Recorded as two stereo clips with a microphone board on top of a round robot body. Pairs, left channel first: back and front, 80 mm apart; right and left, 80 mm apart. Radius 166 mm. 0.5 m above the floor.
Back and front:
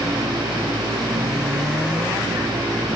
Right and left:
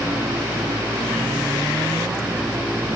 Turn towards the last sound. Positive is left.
No sound to turn to.